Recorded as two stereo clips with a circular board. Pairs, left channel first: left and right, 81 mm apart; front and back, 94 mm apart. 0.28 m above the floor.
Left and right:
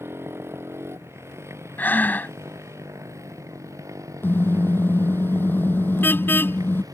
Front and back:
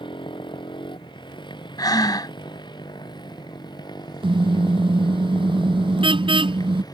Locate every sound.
0.0 s a motorcycle: 30° right; by 6.9 s 45° right
1.8 s breathing: 30° left
4.2 s a car horn: 155° left